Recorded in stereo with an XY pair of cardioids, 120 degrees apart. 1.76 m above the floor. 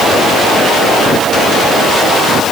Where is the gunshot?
No gunshot in this recording.